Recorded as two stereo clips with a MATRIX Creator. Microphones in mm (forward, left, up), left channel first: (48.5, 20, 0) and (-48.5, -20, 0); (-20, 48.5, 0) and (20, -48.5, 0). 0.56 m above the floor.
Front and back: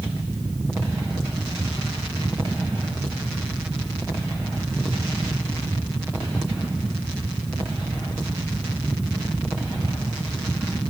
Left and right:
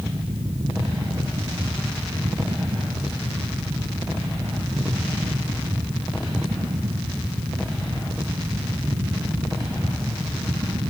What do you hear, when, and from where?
Only background noise.